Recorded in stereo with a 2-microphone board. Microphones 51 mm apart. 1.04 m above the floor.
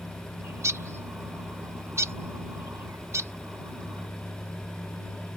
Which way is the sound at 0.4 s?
65° right (ahead or behind).